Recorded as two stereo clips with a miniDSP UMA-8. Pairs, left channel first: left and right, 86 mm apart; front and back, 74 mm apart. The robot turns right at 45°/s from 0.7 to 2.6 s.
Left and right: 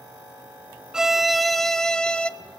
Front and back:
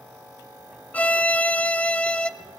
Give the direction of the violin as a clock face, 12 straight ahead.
1 o'clock.